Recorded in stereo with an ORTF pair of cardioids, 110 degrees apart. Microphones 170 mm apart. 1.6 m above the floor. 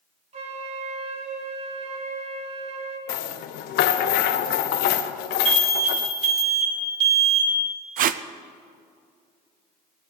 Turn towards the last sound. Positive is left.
turn(degrees=-55)